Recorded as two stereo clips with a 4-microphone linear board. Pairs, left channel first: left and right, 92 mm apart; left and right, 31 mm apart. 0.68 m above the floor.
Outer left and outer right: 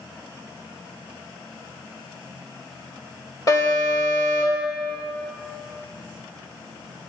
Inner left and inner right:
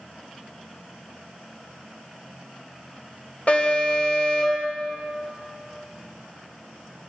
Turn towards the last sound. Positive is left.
turn(degrees=40)  # may be behind; listen again after turning